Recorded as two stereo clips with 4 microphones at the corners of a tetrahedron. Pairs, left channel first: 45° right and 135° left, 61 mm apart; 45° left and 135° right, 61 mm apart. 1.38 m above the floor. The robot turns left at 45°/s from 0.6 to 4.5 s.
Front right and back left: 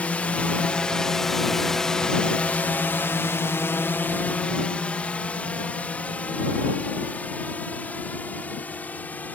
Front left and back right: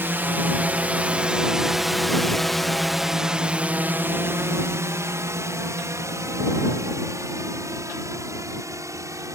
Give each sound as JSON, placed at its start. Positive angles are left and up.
{"t": 0.0, "sound": "a drone", "azimuth_deg": -100}